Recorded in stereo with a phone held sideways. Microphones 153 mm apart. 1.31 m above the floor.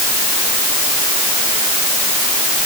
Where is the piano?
No piano in this recording.